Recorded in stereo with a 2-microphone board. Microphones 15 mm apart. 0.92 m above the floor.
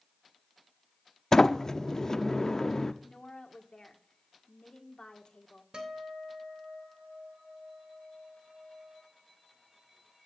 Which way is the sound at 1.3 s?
40° left (ahead or behind).